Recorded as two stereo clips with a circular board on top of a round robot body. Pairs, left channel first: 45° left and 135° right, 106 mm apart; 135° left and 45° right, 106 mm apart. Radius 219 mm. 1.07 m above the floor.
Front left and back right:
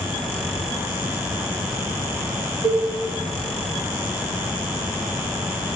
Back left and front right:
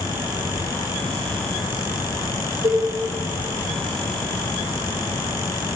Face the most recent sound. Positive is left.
turn(degrees=-85)